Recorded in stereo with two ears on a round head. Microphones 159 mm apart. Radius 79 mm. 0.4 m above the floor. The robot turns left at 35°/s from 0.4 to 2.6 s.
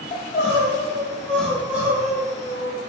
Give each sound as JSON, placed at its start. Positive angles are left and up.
{"t": 0.1, "sound": "crying", "azimuth_deg": 40, "distance_m": 0.6}